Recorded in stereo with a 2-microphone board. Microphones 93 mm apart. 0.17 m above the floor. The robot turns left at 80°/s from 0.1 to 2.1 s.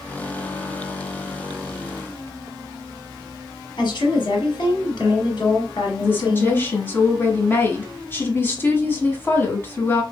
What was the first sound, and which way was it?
A woman speaking, 50° left (ahead or behind).